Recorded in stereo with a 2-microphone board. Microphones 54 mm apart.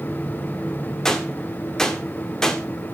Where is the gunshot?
10° left (ahead or behind), 1.9 m.